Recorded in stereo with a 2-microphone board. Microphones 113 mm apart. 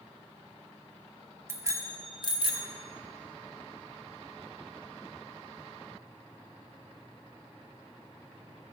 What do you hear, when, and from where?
1.5 s a bicycle bell: 20° right (ahead or behind), 2.5 m; by 2.7 s 65° right (ahead or behind), 2 m